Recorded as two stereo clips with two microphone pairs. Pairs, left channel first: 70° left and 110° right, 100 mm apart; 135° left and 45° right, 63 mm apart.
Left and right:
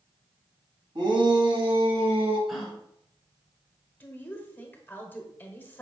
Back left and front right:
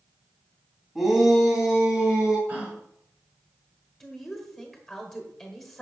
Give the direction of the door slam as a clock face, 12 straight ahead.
I don't hear a door slam.